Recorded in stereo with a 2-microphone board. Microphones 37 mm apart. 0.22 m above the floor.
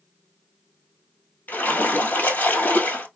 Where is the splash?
60° left (ahead or behind), 1.4 m.